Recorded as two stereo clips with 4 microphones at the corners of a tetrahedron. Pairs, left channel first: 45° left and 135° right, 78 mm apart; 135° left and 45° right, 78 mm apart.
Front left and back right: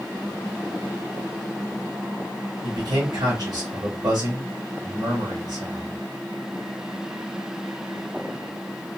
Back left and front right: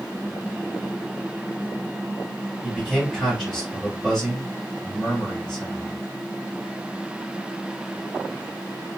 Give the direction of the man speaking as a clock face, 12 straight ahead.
5 o'clock.